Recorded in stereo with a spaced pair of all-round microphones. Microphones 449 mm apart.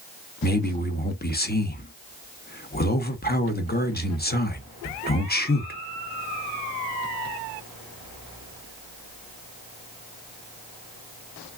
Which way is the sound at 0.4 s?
20° left (ahead or behind).